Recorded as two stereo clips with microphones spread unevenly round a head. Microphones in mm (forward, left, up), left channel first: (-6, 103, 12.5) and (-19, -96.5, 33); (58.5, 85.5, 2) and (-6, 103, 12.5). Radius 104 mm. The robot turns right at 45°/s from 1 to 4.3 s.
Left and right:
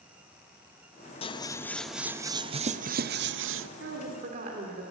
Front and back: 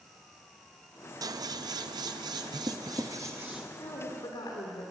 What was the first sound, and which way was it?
Scissors, 145° left.